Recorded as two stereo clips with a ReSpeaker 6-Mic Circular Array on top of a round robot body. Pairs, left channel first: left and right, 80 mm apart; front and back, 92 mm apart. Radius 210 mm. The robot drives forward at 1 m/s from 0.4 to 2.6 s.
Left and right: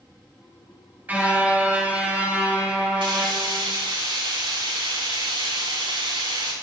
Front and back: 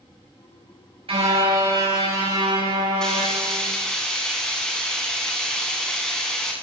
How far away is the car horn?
About 5.5 m.